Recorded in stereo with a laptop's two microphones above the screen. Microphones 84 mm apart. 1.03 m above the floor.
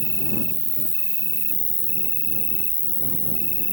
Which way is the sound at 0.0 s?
50° left (ahead or behind).